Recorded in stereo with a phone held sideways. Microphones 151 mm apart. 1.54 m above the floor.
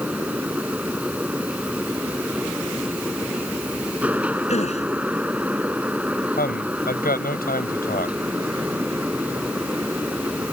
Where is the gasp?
45° left (ahead or behind).